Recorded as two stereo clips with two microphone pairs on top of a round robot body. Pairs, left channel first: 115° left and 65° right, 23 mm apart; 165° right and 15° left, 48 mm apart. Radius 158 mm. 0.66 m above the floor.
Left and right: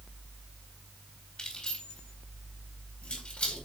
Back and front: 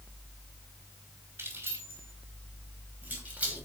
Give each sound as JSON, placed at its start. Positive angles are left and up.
{"t": 1.4, "sound": "keys jangling", "azimuth_deg": 60, "distance_m": 3.5}